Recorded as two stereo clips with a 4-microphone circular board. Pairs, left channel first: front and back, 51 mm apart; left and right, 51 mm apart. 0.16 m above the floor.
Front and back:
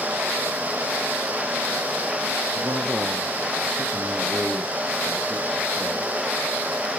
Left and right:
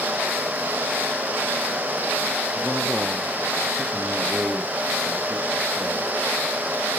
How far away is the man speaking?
About 3 m.